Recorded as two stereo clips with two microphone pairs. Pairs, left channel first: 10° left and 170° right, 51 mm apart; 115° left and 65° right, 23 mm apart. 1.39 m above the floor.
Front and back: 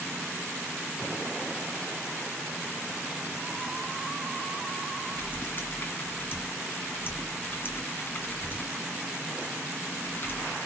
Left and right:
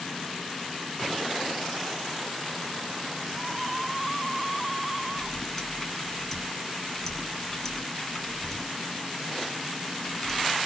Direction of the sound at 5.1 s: 45° left.